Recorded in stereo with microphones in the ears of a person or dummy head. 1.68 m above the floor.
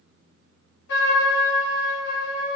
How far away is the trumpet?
About 1.5 m.